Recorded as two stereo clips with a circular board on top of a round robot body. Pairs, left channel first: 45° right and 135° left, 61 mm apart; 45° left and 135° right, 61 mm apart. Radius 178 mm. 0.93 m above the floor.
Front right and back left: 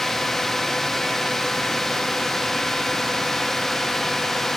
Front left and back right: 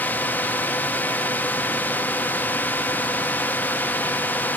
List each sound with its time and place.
0.0 s a drone: 35° left